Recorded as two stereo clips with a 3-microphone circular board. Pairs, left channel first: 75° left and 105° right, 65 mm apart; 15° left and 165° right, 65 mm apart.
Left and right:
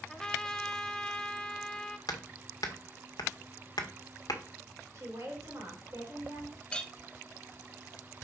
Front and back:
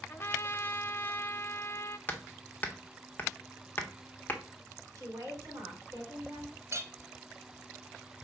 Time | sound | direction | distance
0.1 | a trumpet | 5° left | 0.7 m
2.1 | hammering | 75° left | 1.2 m
5.0 | a woman speaking | 140° right | 4 m
6.7 | a clink | 150° left | 0.8 m